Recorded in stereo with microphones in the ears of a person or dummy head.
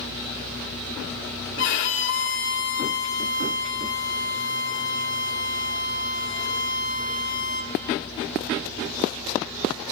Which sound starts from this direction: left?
A violin, at 1.6 s.